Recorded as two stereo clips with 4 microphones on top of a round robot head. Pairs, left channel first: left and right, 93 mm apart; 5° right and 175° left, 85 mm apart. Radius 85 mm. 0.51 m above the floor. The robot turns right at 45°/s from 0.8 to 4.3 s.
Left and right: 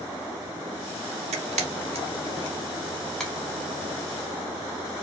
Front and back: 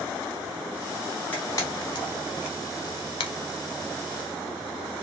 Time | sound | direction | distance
1.3 | a camera shutter | 80° right | 0.6 m